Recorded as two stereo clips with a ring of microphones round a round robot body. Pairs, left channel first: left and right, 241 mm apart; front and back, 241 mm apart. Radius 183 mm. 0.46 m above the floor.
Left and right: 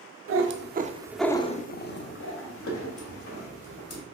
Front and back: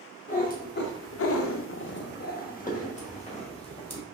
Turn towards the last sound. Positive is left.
turn(degrees=70)